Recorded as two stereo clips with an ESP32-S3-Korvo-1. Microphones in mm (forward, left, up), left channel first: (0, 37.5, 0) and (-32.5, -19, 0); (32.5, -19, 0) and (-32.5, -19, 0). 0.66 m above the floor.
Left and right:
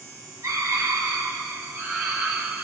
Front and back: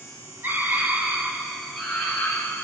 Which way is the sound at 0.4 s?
130° right.